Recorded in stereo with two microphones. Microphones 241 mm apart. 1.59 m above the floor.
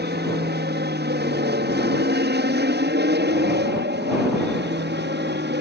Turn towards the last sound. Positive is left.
turn(degrees=-45)  # may be behind; listen again after turning